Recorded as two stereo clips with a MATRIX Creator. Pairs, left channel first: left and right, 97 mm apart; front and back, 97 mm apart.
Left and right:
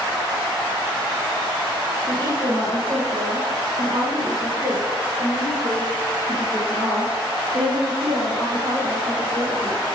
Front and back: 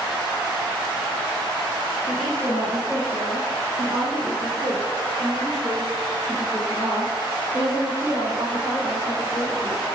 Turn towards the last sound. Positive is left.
turn(degrees=-65)